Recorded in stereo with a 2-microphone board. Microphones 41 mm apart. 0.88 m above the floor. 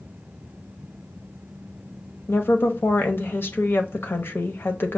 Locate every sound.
2.3 s a woman speaking: 60° left (ahead or behind), 0.7 m